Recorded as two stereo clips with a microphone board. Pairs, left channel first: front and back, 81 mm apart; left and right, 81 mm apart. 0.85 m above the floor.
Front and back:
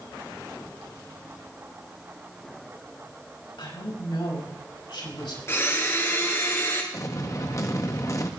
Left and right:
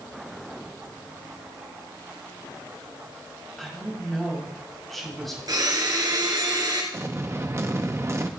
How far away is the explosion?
About 0.9 m.